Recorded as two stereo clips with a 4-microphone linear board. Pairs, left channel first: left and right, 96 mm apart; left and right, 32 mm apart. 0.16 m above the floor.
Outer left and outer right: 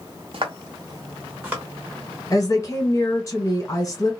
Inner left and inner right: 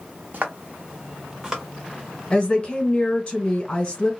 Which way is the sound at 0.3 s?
60° right (ahead or behind).